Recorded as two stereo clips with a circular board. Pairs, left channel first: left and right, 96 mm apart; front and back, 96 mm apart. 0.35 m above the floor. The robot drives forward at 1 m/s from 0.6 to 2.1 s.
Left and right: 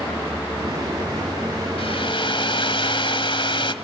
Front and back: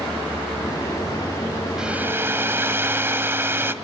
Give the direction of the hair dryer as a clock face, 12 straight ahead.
9 o'clock.